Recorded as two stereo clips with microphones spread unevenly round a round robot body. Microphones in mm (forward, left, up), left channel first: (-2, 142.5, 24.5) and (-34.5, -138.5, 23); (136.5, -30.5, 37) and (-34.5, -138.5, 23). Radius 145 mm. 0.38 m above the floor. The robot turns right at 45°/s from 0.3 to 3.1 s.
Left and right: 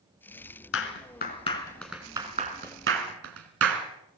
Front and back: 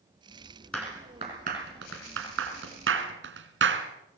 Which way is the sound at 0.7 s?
120° left.